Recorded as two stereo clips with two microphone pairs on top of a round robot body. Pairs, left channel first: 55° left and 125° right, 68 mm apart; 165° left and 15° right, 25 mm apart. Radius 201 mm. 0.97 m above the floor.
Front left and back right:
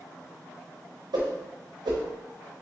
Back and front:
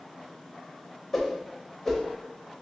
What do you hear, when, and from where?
1.1 s a whoosh: 115° right, 0.5 m